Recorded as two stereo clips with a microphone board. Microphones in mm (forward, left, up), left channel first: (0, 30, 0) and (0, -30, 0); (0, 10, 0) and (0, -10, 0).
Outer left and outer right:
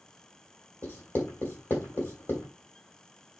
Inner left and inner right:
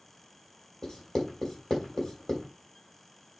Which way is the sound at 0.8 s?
30° left (ahead or behind).